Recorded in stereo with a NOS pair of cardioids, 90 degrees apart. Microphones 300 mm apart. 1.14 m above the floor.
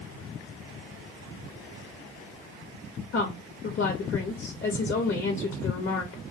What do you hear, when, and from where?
3.1 s a woman speaking: 45° left, 0.6 m